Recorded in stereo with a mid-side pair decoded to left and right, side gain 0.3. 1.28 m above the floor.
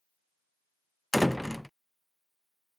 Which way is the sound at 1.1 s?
10° left.